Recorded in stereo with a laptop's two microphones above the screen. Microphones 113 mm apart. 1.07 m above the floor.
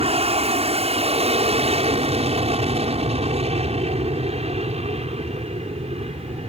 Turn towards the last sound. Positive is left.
turn(degrees=-70)  # may be behind; listen again after turning